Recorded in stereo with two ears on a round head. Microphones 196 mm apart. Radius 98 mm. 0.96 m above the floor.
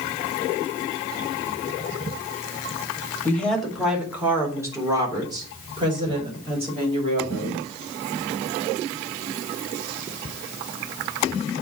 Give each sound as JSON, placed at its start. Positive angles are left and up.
{"t": 3.2, "sound": "a woman speaking", "side_deg": 10, "distance_m": 2.0}